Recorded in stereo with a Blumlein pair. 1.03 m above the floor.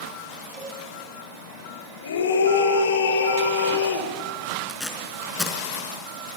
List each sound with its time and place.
0.5 s a cowbell: 15° right, 7 m
2.0 s a scream: 65° left, 3.5 m
4.7 s tape being pulled: 5° left, 4 m